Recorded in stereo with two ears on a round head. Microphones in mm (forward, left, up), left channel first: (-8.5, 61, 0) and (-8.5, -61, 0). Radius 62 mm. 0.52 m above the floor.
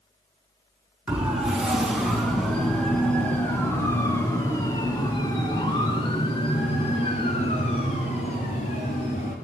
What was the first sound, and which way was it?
A siren, 10° right (ahead or behind).